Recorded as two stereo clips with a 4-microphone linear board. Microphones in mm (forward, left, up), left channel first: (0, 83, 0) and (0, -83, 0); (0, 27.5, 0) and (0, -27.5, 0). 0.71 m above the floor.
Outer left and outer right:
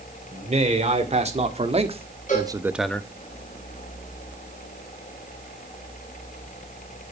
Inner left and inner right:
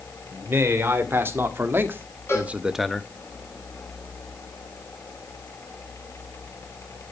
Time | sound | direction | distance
0.3 | a man speaking | 45° right (ahead or behind) | 2.5 m
2.3 | a cowbell | 50° left (ahead or behind) | 4.5 m